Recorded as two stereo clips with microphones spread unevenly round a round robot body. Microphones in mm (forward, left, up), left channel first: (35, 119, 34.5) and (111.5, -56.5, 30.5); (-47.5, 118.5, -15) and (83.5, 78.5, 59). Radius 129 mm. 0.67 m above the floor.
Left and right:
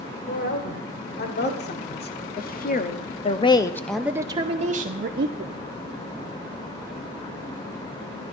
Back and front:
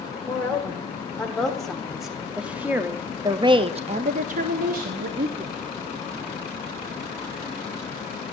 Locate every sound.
0.3 s a woman speaking: 90° left, 2.5 m; by 5.5 s 70° right, 1.2 m